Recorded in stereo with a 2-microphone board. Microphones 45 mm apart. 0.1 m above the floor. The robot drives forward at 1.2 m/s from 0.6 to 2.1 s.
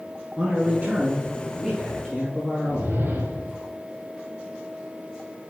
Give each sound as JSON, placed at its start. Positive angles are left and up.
{"t": 0.4, "sound": "a man speaking", "side_deg": -30, "distance_m": 1.3}
{"t": 2.7, "sound": "a whoosh", "side_deg": -60, "distance_m": 1.5}